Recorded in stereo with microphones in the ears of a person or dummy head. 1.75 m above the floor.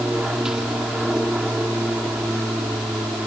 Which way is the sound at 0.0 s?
5° right (ahead or behind).